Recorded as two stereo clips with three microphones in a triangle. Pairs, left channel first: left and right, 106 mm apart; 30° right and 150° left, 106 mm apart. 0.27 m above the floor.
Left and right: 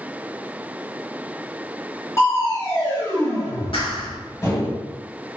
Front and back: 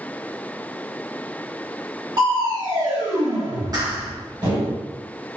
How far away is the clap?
About 2 m.